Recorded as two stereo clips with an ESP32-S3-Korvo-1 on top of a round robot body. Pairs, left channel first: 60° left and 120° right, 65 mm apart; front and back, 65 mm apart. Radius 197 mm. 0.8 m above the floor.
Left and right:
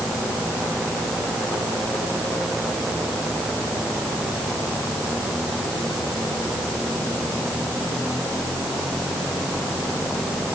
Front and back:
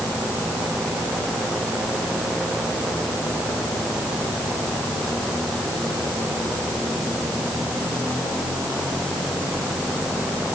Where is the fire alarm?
I don't hear a fire alarm.